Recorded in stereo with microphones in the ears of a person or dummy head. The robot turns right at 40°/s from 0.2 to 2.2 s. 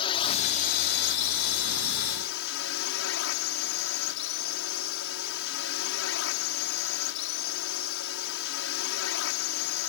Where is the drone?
30° left; by 9.9 s 110° left.